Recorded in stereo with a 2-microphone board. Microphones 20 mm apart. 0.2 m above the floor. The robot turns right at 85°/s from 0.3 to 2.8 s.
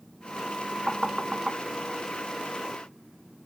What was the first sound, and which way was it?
Knocking, 15° right (ahead or behind).